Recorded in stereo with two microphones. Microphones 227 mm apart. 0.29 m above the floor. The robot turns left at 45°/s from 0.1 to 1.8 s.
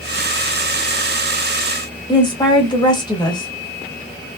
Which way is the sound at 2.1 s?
20° left (ahead or behind).